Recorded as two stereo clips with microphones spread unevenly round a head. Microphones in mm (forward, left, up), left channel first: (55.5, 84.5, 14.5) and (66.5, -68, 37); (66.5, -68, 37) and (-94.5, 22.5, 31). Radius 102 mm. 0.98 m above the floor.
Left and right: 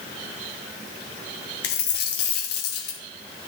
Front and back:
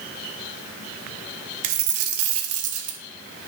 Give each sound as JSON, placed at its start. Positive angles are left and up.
{"t": 1.6, "sound": "a dropped coin", "azimuth_deg": 135, "distance_m": 0.9}